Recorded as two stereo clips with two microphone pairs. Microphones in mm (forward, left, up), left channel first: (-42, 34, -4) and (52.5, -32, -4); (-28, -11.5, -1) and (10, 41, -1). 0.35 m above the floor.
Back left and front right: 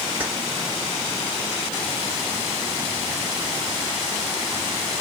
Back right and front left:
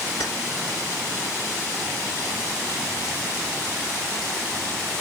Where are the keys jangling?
110° right, 3.5 m.